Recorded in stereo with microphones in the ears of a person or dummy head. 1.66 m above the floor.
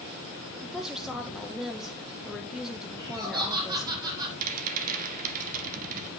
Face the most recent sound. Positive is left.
turn(degrees=-40)  # may be behind; listen again after turning